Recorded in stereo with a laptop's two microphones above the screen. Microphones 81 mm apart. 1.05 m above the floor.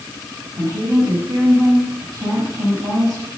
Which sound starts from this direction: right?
A woman speaking, at 0.6 s.